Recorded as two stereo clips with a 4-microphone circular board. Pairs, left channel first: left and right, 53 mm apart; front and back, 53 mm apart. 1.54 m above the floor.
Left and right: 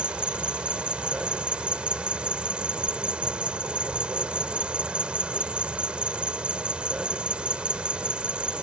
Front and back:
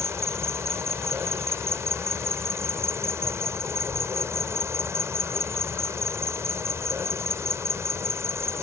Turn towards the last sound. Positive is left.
turn(degrees=-160)